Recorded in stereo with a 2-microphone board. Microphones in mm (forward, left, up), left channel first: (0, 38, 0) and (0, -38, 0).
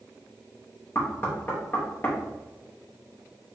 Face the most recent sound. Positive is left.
turn(degrees=30)  # may be behind; listen again after turning